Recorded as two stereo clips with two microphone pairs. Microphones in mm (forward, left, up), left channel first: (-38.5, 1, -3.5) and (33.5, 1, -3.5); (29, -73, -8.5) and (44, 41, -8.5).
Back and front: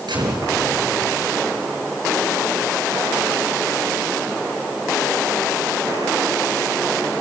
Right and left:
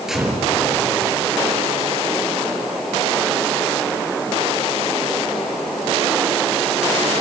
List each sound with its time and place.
0.1 s a gunshot: 5° right, 6.5 m